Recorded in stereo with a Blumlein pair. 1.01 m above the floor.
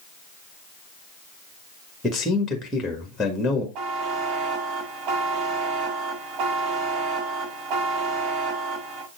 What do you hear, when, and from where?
2.0 s a man speaking: 10° left, 1.5 m
3.8 s a buzzer: 40° right, 1.2 m